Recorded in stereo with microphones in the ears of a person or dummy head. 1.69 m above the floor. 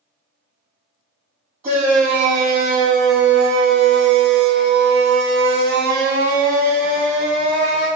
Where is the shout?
45° right (ahead or behind), 2 m; by 7.9 s 40° right (ahead or behind), 2.5 m.